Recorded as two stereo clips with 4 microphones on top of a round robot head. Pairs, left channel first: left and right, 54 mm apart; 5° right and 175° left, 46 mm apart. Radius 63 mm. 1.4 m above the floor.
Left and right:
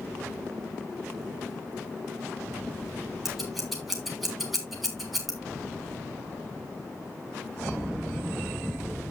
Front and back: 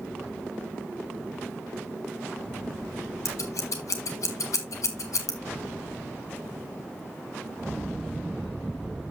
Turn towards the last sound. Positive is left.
turn(degrees=0)